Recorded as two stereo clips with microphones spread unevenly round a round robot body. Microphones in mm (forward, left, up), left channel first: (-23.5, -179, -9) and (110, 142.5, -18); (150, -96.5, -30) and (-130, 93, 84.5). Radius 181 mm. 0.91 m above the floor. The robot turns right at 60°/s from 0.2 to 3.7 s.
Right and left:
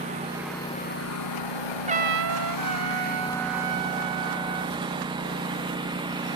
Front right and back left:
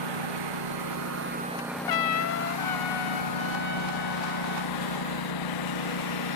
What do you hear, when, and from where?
0.0 s a lawn mower: 140° left; by 6.4 s 10° right
1.9 s a trumpet: 5° right; by 4.8 s 105° left